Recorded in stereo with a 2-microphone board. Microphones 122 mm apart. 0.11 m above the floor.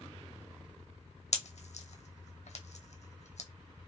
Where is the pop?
75° left (ahead or behind), 0.7 m.